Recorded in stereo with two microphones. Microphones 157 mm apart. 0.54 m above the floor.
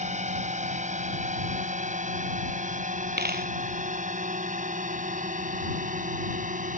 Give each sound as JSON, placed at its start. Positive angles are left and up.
{"t": 0.0, "sound": "a drone", "side_deg": -50}
{"t": 3.2, "sound": "a dropped coin", "side_deg": -85}